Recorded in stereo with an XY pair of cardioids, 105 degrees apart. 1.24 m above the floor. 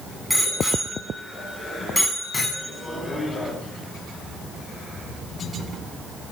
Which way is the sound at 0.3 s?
5° right.